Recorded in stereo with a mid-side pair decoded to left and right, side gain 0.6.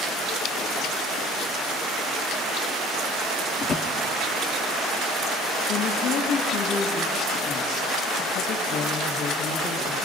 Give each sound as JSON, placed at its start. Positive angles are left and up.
{"t": 3.6, "sound": "a drawer", "azimuth_deg": 45, "distance_m": 1.6}
{"t": 5.7, "sound": "a woman speaking", "azimuth_deg": 70, "distance_m": 2.0}